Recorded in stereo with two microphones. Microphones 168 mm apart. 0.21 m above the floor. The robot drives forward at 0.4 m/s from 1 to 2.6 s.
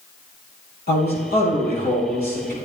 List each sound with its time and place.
0.9 s a man speaking: 65° left (ahead or behind), 5.5 m; by 2.5 s 60° left (ahead or behind), 5.5 m